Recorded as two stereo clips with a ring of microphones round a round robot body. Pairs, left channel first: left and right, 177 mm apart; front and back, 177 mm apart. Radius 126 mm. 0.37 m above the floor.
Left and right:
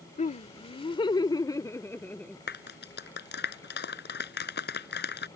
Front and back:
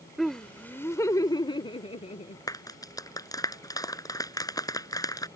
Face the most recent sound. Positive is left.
turn(degrees=70)